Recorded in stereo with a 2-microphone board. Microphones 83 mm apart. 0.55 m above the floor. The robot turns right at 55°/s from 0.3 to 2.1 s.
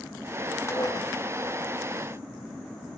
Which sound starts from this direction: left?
Dishes clattering, at 0.7 s.